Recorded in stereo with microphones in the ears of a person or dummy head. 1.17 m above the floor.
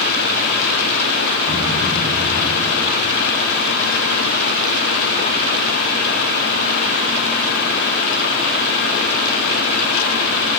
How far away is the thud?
About 5.5 m.